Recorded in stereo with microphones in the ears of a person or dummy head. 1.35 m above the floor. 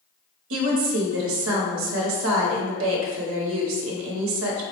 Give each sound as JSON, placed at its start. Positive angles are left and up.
{"t": 0.5, "sound": "a woman speaking", "side_deg": -70, "distance_m": 0.8}